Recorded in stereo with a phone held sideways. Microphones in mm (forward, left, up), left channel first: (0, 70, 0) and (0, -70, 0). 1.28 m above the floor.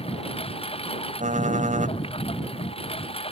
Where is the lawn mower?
45° left (ahead or behind).